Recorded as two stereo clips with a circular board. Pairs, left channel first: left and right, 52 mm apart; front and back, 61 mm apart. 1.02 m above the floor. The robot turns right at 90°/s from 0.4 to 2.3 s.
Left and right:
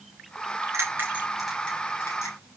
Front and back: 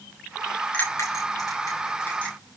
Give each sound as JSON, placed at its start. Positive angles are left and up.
{"t": 0.7, "sound": "a bell", "azimuth_deg": -60, "distance_m": 7.5}